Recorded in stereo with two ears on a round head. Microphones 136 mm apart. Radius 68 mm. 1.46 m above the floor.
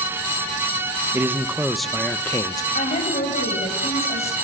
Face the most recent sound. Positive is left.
turn(degrees=45)  # may be behind; listen again after turning